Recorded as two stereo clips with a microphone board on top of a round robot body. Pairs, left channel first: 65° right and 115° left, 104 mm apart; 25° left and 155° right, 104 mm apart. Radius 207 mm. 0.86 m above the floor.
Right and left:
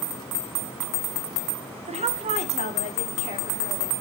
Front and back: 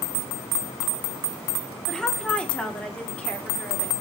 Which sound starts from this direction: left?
A woman speaking, at 1.9 s.